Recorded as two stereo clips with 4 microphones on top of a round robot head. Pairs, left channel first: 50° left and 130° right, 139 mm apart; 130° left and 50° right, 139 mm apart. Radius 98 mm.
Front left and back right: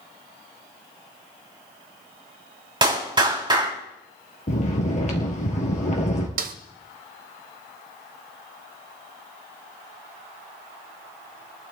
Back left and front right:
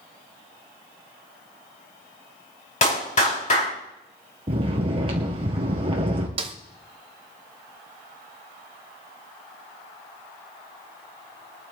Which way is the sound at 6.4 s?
105° right.